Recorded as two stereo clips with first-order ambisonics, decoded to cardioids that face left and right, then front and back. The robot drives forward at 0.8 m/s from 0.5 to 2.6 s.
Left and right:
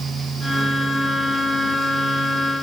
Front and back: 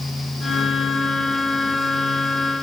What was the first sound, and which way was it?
Only background noise.